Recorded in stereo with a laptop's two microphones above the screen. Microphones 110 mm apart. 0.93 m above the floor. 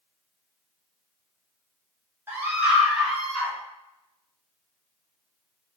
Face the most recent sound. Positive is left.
turn(degrees=5)  # may be behind; listen again after turning